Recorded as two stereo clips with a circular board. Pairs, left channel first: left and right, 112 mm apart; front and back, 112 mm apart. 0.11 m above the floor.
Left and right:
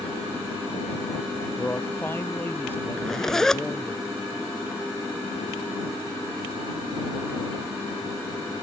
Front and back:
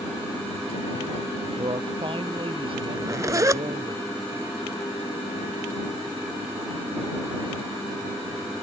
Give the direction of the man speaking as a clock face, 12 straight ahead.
7 o'clock.